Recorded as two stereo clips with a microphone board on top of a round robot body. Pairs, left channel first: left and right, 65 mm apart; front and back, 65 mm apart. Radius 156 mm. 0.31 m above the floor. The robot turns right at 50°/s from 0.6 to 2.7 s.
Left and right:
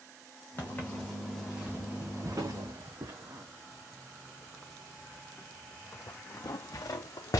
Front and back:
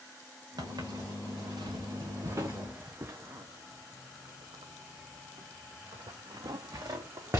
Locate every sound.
0.6 s footsteps: 150° left, 2.5 m; by 7.4 s 125° left, 1.7 m